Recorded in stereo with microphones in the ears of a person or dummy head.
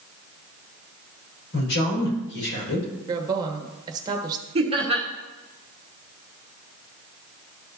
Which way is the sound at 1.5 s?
75° left (ahead or behind).